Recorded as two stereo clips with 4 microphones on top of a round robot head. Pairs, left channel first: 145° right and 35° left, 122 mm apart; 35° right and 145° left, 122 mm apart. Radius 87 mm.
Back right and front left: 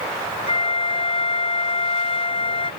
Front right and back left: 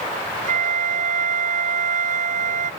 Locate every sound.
0.5 s a flute: 165° left